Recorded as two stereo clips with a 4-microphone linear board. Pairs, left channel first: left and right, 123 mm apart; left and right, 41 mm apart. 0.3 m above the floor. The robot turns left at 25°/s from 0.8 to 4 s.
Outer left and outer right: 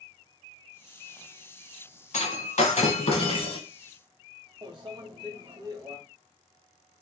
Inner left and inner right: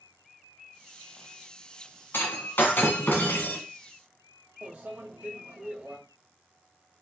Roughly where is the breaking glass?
Left.